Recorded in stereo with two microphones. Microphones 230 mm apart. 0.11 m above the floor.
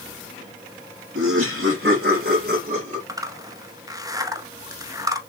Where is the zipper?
15° right (ahead or behind), 0.8 m.